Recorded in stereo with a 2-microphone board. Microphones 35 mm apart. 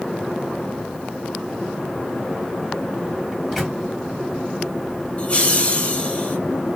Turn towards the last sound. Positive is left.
turn(degrees=30)  # may be behind; listen again after turning